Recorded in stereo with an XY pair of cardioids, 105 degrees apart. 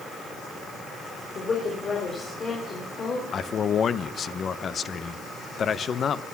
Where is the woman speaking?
40° left, 4 m.